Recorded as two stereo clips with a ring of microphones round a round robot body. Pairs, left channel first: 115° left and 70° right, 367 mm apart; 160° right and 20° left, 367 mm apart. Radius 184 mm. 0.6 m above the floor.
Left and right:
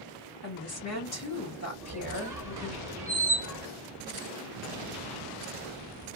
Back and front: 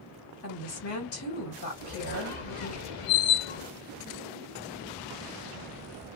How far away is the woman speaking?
About 1.7 m.